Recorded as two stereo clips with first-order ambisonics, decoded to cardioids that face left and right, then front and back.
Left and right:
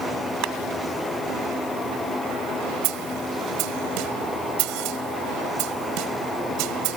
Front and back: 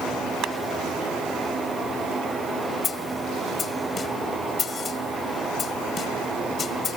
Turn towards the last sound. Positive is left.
turn(degrees=-65)